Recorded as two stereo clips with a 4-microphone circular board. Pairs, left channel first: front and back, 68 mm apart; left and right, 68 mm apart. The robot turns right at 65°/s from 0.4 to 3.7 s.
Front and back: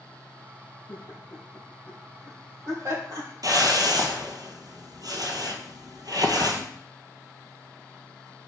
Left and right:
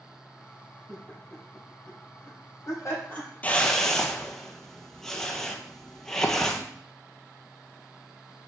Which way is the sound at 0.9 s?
5° left.